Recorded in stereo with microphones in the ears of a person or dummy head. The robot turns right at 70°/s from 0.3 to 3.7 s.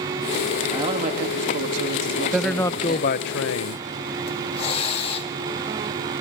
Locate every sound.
0.7 s a man speaking: 160° right, 2 m; by 3.1 s 10° left, 2 m
2.3 s a man speaking: 10° right, 0.6 m; by 3.8 s 85° left, 0.6 m
4.3 s a hiss: 30° left (ahead or behind), 1.9 m